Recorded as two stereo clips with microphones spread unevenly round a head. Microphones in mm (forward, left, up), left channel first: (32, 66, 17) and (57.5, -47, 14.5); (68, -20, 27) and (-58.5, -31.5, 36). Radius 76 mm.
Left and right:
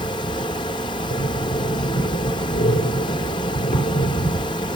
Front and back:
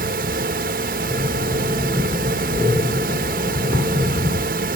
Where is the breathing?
105° left, 5.5 m.